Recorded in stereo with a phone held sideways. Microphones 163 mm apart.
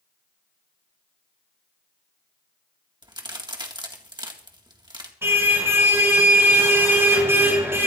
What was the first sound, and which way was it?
A crack, 25° right (ahead or behind).